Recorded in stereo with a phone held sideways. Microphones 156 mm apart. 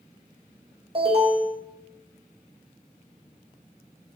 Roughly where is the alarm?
Right.